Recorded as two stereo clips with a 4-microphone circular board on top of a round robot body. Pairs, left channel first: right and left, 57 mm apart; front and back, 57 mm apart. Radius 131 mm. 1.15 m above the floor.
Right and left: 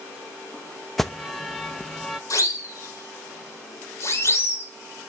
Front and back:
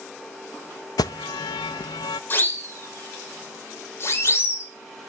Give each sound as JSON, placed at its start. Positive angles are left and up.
{"t": 1.0, "sound": "an alarm", "azimuth_deg": 0, "distance_m": 0.6}
{"t": 2.3, "sound": "a siren", "azimuth_deg": -60, "distance_m": 4.5}